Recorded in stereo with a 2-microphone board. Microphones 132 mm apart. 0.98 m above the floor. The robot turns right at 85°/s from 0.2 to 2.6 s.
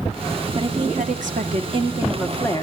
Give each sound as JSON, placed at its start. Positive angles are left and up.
{"t": 0.6, "sound": "a woman speaking", "azimuth_deg": -145, "distance_m": 2.0}